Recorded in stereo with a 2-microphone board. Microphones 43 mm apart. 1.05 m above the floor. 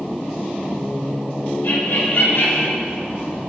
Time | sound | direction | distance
1.6 | laughter | 70° left (ahead or behind) | 2.5 m